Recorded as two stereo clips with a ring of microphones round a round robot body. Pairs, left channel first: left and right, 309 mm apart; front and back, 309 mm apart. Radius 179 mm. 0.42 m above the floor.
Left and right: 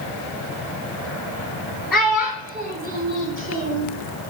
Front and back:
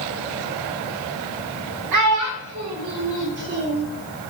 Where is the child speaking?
Straight behind, 1.1 m; by 3.9 s 120° right, 1.2 m.